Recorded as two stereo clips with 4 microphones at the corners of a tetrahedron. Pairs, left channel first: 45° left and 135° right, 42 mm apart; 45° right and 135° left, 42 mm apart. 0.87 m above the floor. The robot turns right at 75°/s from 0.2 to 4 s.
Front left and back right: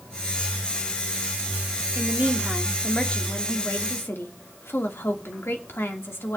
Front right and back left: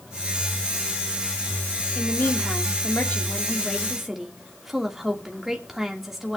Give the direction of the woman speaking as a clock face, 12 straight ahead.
3 o'clock.